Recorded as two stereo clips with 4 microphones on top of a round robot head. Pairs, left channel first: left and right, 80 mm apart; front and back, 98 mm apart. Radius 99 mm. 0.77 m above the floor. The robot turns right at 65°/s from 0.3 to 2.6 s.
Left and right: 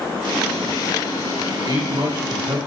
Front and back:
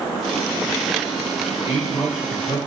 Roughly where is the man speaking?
Behind right.